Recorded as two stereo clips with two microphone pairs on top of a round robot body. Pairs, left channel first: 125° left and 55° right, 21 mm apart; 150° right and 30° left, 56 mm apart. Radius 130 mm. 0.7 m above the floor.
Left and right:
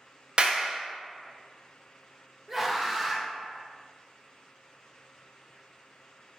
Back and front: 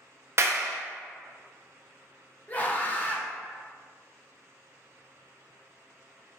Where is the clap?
5° right, 0.6 m.